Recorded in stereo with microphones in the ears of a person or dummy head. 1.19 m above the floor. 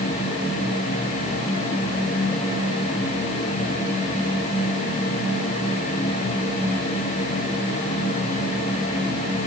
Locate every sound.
Only background noise.